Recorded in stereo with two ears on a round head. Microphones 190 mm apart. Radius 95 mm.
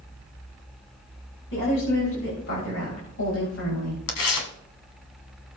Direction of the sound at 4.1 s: 75° left (ahead or behind).